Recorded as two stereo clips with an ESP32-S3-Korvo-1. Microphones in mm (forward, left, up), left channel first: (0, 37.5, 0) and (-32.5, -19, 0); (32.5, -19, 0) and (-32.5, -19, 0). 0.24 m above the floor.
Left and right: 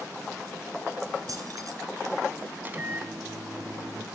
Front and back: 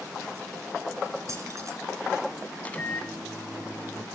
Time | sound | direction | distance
1.3 | keys jangling | 145° right | 2 m
2.6 | a microwave | 65° right | 1.2 m